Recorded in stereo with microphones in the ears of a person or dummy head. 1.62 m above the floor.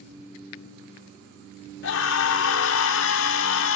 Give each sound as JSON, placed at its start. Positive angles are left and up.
{"t": 1.8, "sound": "a scream", "side_deg": 65, "distance_m": 0.7}